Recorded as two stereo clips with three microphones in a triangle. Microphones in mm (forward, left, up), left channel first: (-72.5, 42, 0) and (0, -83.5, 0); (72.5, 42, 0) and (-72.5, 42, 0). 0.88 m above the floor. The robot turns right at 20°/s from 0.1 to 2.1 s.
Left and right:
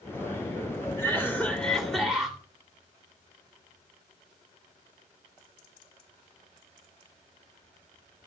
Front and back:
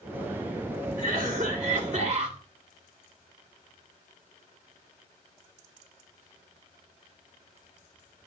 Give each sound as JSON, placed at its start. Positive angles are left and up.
{"t": 1.0, "sound": "a cough", "azimuth_deg": -170, "distance_m": 2.5}